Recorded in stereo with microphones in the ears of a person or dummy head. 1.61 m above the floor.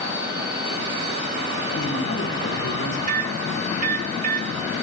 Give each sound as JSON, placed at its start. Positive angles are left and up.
{"t": 1.8, "sound": "a man speaking", "side_deg": 70, "distance_m": 4.5}
{"t": 3.1, "sound": "a microwave", "side_deg": -60, "distance_m": 2.5}